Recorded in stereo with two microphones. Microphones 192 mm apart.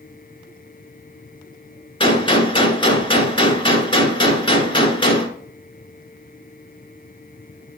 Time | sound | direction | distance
2.0 | a gunshot | 25° left (ahead or behind) | 1.1 m